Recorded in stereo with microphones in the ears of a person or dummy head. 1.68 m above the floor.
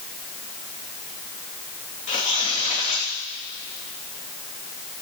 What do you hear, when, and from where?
2.1 s tearing paper: 35° left (ahead or behind), 3 m